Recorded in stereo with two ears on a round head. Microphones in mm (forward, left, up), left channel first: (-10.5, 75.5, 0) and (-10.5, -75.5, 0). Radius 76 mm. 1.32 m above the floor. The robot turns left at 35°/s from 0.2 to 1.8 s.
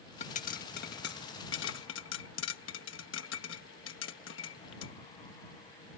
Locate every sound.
0.2 s a pop: 45° left (ahead or behind); by 4.9 s 80° left